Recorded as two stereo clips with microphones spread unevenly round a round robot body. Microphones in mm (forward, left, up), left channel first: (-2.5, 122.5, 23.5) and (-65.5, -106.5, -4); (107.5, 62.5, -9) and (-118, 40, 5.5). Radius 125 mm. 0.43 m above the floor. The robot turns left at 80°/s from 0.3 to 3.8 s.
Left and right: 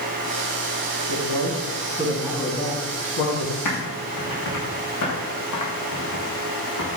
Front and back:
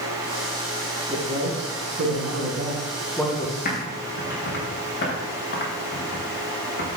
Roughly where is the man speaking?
Right.